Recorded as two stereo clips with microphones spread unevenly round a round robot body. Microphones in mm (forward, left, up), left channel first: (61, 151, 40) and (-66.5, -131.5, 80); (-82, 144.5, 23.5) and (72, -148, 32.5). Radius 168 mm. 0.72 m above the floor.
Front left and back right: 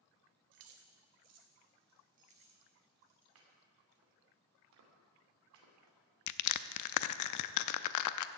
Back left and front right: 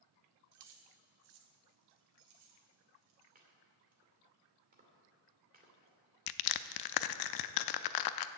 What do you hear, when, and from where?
0.5 s keys jangling: 100° right, 1.6 m; by 3.2 s 30° right, 3 m
3.4 s chopping: 125° right, 2.5 m
6.3 s crushing: 95° left, 0.5 m